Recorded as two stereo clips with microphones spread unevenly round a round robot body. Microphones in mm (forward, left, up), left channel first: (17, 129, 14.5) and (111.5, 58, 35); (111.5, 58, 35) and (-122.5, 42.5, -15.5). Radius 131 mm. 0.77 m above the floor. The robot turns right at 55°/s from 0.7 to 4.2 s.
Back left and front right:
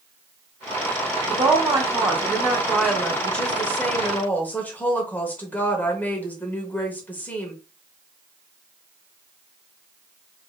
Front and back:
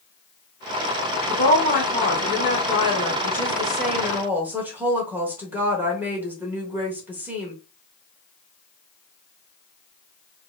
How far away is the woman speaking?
About 1.0 m.